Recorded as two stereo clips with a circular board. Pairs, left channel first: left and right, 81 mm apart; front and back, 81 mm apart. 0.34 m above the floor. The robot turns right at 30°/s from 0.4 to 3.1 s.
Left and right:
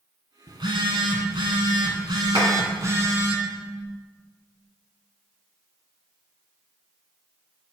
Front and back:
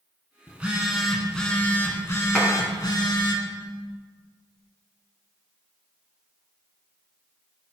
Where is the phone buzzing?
110° right, 1.3 m; by 3.4 s 30° right, 1.3 m.